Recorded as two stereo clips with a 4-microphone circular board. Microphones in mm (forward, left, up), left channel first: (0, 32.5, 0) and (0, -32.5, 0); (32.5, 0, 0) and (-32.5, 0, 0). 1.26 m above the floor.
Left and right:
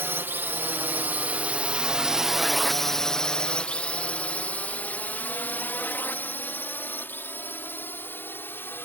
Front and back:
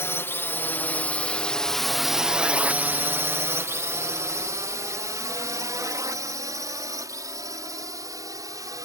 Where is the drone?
40° right; by 8.9 s 150° left.